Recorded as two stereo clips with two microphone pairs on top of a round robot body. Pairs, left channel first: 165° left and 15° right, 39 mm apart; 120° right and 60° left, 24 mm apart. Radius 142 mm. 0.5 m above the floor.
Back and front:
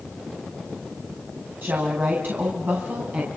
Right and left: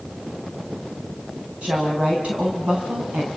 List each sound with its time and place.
1.6 s a woman speaking: 15° left, 5 m; by 3.3 s 35° left, 5.5 m